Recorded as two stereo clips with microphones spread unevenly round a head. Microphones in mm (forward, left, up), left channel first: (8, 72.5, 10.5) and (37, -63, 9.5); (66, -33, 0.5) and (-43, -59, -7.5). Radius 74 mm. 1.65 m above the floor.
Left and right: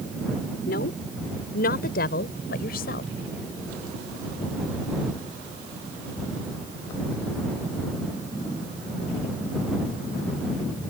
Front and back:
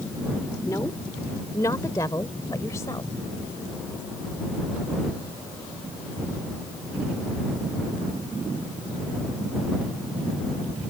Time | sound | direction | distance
0.7 | a woman speaking | 85° left | ?